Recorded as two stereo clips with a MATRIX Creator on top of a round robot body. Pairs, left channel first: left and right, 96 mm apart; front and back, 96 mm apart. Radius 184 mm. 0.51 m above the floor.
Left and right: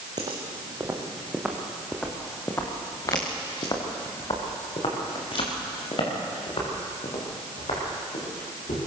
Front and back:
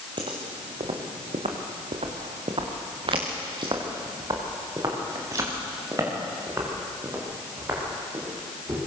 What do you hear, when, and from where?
0.2 s footsteps: 140° right, 3 m; by 8.8 s 115° left, 9.5 m